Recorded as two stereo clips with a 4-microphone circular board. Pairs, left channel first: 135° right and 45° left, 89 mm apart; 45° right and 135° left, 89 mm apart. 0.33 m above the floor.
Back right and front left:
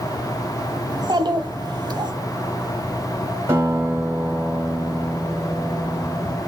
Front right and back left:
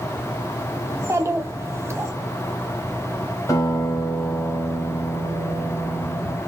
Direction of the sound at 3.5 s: 5° right.